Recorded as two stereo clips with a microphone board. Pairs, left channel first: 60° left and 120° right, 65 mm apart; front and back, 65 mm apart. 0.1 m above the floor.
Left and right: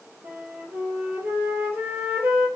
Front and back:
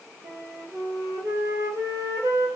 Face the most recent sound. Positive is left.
turn(degrees=-175)